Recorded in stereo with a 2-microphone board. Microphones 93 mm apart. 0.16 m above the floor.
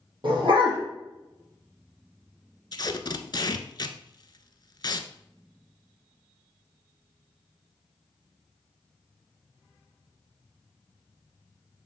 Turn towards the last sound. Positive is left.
turn(degrees=50)  # may be behind; listen again after turning